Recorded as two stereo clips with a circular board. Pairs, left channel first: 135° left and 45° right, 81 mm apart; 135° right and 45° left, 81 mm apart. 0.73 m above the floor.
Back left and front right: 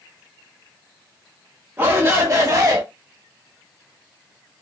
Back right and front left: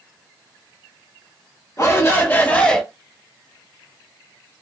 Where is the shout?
100° right, 1.1 m; by 2.8 s 55° right, 0.9 m.